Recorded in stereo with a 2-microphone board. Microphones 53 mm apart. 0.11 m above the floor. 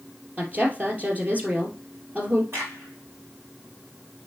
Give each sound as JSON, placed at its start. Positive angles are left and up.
{"t": 0.4, "sound": "a woman speaking", "side_deg": -30, "distance_m": 2.5}
{"t": 2.5, "sound": "a crack", "side_deg": -55, "distance_m": 4.5}